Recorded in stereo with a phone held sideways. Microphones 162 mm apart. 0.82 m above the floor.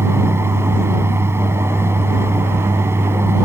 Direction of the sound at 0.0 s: 15° right (ahead or behind).